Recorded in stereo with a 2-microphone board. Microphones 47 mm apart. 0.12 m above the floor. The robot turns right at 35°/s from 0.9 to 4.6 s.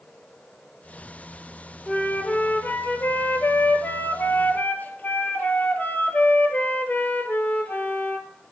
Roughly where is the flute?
Ahead left.